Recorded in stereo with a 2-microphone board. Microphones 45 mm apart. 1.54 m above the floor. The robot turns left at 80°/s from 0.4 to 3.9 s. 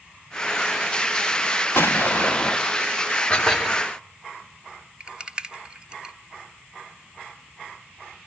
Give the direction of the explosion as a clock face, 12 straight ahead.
9 o'clock.